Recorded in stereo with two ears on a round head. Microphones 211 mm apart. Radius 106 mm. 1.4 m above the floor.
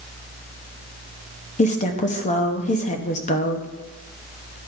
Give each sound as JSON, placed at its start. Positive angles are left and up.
{"t": 1.6, "sound": "a woman speaking", "side_deg": 30, "distance_m": 0.8}